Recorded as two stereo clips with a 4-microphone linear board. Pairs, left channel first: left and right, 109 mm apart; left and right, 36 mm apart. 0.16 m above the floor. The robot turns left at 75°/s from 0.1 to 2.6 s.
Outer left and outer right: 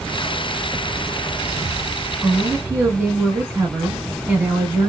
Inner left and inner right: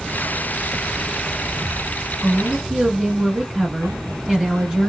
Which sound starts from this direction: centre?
A woman speaking, at 2.2 s.